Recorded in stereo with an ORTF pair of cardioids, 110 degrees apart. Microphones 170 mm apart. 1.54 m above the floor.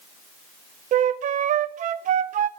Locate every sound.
0.9 s a flute: 50° right, 0.5 m